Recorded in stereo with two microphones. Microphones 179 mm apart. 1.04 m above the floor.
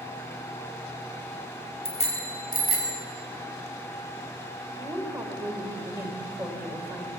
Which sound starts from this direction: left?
A bicycle bell, at 1.9 s.